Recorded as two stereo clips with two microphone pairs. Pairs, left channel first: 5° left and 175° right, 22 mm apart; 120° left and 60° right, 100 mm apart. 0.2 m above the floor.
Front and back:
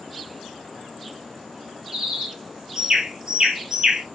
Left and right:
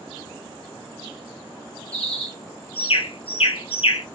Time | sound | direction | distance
1.9 | a bird | 130° left | 0.7 m